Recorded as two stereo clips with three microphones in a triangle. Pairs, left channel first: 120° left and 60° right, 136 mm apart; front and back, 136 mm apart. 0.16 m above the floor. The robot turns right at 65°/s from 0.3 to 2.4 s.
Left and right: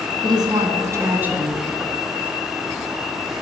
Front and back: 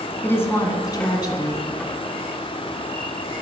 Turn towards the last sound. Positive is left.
turn(degrees=75)